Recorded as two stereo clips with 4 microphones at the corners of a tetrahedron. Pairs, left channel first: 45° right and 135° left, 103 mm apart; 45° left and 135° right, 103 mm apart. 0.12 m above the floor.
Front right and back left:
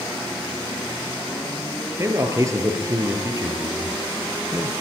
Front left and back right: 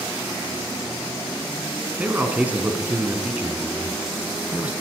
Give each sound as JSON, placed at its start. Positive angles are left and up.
{"t": 2.0, "sound": "a man speaking", "azimuth_deg": 165, "distance_m": 2.0}